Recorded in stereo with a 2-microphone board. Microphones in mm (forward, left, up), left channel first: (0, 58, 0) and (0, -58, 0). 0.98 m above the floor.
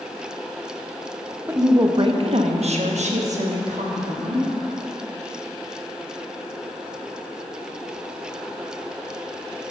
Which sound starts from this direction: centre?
A woman speaking, at 1.5 s.